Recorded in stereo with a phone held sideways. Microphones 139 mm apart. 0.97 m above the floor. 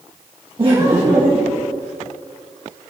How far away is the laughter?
About 1.1 m.